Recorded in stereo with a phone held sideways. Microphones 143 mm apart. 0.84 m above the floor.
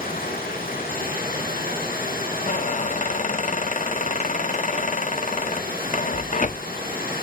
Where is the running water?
90° left, 9.5 m.